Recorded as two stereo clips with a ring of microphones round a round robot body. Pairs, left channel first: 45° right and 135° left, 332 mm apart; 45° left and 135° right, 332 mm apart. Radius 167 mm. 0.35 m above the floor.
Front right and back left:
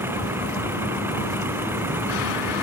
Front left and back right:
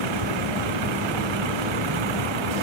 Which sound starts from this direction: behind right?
A vehicle, at 0.0 s.